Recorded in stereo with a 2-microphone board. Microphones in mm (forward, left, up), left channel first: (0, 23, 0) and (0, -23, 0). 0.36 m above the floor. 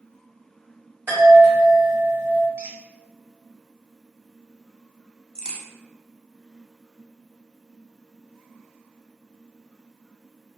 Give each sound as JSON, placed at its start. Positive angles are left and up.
{"t": 1.1, "sound": "a chime", "side_deg": -40, "distance_m": 1.9}
{"t": 2.6, "sound": "a squeak", "side_deg": -45, "distance_m": 0.5}
{"t": 5.3, "sound": "a crack", "side_deg": 15, "distance_m": 0.7}